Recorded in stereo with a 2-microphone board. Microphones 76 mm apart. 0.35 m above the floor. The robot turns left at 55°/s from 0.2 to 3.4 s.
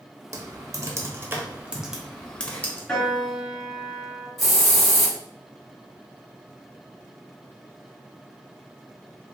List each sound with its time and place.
0.3 s typing on a keyboard: 45° right (ahead or behind), 0.6 m; by 2.8 s 25° left (ahead or behind), 0.6 m
2.9 s a piano: 15° left (ahead or behind), 1.2 m; by 4.3 s 15° right (ahead or behind), 1.2 m
4.4 s a hiss: centre (ahead or behind), 1.5 m